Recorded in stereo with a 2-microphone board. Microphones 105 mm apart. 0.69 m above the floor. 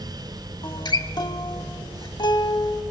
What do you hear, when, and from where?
0.6 s a guitar: 45° left (ahead or behind), 0.6 m